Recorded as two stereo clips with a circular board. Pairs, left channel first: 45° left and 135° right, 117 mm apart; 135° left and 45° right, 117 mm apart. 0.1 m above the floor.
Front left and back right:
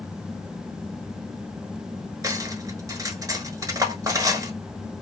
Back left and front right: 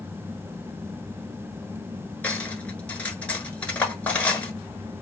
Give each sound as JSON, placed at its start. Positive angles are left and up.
{"t": 2.2, "sound": "cutlery clinking", "azimuth_deg": -160, "distance_m": 0.8}